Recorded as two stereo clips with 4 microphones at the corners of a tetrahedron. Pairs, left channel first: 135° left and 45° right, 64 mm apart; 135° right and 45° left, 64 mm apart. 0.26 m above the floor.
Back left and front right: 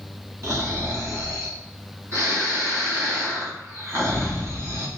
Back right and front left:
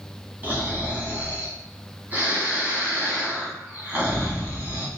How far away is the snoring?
About 1.5 m.